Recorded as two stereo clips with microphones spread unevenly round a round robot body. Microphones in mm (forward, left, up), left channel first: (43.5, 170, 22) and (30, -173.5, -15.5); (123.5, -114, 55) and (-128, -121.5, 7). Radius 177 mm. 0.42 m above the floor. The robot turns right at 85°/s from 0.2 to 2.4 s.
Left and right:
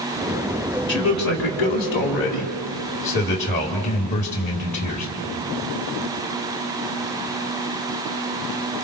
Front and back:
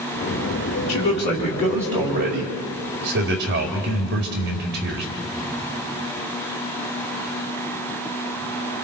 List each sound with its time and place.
0.9 s a man speaking: 30° left, 1.9 m; by 5.1 s 160° left, 1.9 m